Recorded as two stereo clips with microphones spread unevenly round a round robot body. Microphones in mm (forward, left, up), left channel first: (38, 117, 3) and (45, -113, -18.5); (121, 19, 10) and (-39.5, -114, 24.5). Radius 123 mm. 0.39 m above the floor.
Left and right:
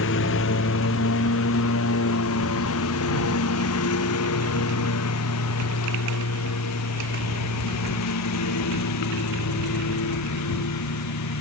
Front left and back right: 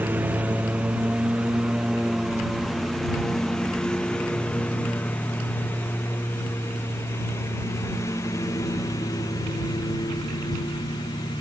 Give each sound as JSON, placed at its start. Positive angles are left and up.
{"t": 0.0, "sound": "a lawn mower", "azimuth_deg": 135}